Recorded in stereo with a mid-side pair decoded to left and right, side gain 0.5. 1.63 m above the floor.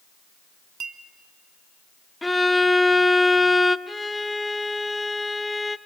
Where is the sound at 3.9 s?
10° left, 0.6 m.